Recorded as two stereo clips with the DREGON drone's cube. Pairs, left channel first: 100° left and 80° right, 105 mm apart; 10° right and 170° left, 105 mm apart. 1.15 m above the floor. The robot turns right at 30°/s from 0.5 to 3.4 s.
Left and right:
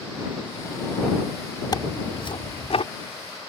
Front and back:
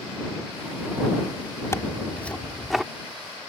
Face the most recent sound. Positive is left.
turn(degrees=100)